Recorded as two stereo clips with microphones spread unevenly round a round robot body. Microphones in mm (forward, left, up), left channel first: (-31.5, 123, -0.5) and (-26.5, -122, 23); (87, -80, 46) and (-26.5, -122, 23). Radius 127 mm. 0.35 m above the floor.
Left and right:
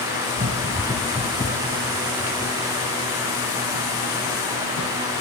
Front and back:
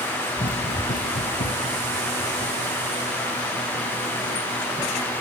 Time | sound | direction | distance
0.4 | running footsteps | 30° right | 1.4 m